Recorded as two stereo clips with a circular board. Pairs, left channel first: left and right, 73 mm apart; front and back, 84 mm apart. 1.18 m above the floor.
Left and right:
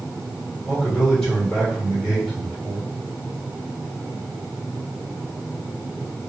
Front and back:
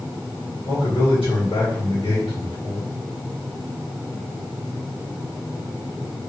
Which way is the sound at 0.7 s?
10° left.